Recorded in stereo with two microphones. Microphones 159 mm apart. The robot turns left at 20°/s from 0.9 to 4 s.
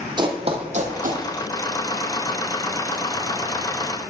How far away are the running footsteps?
About 1.2 m.